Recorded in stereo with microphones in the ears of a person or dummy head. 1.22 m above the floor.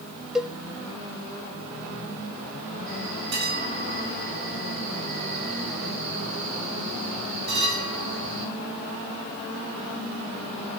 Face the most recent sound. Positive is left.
turn(degrees=-60)  # may be behind; listen again after turning